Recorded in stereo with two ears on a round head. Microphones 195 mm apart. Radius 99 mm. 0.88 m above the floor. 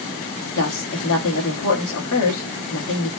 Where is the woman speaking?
65° left (ahead or behind), 1.2 m.